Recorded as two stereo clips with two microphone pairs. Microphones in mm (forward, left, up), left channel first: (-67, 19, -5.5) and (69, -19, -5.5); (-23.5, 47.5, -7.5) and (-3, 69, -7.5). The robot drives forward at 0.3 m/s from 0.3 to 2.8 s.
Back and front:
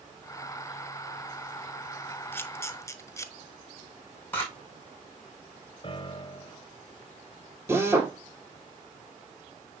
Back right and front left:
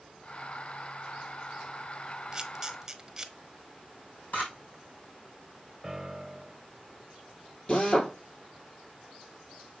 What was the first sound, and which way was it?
A camera shutter, 100° left.